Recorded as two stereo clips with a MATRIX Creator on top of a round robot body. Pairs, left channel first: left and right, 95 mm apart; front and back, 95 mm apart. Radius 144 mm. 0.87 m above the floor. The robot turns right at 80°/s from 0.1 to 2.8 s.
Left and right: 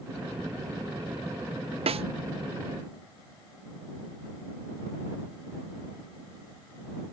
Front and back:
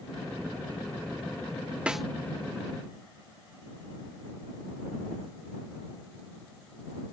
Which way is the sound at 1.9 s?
100° right.